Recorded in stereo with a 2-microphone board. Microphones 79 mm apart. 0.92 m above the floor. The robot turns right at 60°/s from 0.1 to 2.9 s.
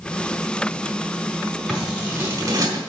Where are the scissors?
Centre (ahead or behind), 4 m; by 2.8 s 70° right (ahead or behind), 4 m.